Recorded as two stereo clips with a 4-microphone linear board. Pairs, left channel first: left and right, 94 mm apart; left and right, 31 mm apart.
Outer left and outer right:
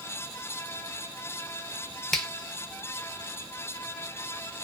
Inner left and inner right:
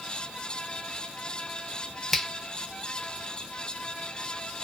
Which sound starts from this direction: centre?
A finger snap, at 2.1 s.